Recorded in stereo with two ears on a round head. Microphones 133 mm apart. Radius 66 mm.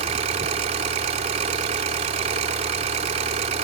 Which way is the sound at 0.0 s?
45° right (ahead or behind).